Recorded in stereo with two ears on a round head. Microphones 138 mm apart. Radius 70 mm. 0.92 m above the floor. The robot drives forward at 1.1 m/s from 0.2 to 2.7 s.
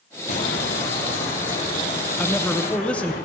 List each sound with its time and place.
0.3 s footsteps: 55° left (ahead or behind), 1.5 m; by 3.2 s 70° left (ahead or behind), 5 m
2.2 s a man speaking: 10° left (ahead or behind), 0.8 m